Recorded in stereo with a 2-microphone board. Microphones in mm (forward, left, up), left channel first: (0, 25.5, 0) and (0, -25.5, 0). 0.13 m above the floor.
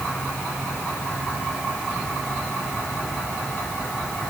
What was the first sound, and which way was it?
Only background noise.